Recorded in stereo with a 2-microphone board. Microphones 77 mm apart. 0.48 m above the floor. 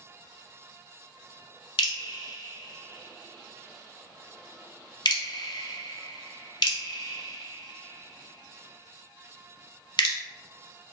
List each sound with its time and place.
1.8 s dripping: 70° left (ahead or behind), 0.6 m